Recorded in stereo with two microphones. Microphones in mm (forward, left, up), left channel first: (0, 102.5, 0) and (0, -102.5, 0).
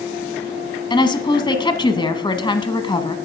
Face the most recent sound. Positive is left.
turn(degrees=25)  # may be behind; listen again after turning